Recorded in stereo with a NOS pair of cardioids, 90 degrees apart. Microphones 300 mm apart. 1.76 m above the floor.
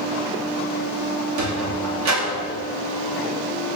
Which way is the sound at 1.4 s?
65° right.